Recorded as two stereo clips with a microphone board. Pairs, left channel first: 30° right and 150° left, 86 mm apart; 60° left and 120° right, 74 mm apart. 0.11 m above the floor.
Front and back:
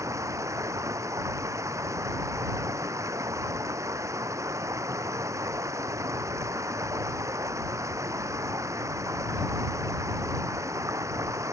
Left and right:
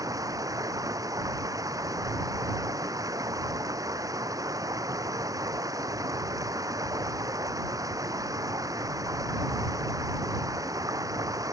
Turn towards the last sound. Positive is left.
turn(degrees=-155)